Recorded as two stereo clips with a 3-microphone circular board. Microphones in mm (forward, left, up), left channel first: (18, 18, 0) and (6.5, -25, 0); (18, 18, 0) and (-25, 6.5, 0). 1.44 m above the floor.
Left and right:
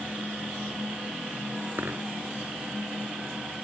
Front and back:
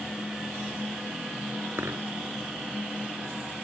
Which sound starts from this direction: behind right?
A dropped coin, at 1.8 s.